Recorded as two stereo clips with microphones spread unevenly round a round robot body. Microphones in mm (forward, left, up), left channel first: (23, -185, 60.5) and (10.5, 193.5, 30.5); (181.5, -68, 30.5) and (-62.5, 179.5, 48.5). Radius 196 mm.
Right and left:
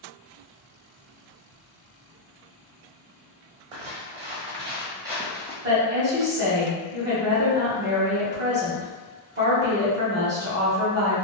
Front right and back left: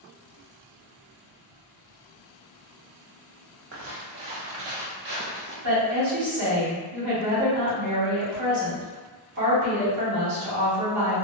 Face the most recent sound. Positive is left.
turn(degrees=135)